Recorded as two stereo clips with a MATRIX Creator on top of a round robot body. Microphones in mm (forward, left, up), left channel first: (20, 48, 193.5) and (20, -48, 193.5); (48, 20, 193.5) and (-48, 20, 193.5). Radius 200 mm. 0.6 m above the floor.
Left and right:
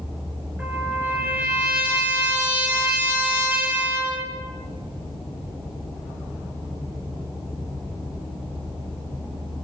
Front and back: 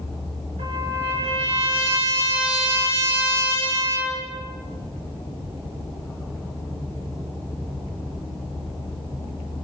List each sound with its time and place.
0.6 s a trumpet: 165° right, 9.5 m